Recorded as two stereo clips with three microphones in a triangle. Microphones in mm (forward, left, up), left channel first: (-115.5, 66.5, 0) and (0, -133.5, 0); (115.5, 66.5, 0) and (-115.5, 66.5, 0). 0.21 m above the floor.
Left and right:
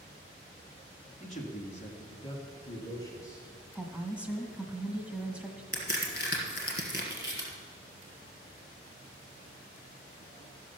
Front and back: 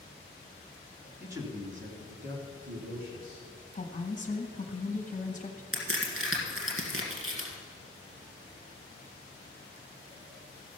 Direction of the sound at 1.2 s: 100° left.